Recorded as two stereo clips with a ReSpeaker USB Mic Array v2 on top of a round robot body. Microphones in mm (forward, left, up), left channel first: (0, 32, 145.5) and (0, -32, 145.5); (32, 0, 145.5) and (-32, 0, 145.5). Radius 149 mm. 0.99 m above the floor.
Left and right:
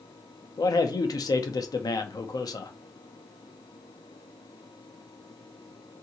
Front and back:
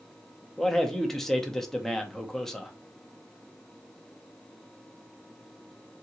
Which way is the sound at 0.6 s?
85° left.